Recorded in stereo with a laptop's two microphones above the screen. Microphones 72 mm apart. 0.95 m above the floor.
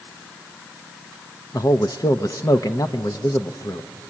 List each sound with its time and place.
1.5 s a man speaking: 55° left (ahead or behind), 0.6 m